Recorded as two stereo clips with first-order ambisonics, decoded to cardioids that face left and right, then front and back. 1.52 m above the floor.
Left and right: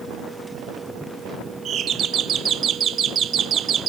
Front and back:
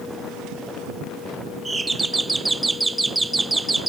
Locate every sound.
1.6 s a doorbell: 105° right, 0.5 m